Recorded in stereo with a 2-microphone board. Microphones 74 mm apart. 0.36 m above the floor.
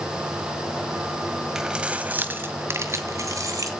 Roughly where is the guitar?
I don't hear a guitar.